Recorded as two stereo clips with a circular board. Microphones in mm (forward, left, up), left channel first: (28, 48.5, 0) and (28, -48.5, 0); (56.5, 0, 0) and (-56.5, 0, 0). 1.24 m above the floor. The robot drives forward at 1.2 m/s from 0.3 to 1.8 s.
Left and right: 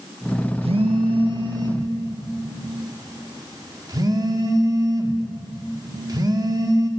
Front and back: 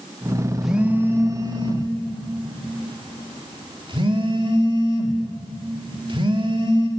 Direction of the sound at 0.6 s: 90° right.